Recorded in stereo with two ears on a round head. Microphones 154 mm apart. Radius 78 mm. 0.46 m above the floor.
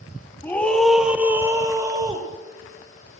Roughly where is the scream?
Centre.